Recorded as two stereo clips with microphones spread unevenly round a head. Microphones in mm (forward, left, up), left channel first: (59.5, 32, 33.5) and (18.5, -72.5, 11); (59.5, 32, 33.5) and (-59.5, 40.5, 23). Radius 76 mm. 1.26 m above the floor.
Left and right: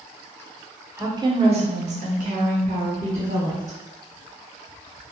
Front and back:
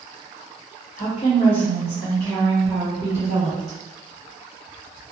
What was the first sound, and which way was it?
A woman speaking, 45° right.